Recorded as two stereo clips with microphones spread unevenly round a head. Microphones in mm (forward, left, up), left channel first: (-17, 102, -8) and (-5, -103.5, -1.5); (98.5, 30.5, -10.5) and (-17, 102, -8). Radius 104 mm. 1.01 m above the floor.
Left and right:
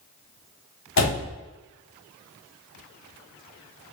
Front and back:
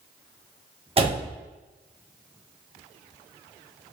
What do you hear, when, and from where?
1.0 s a door slam: 100° left, 1.3 m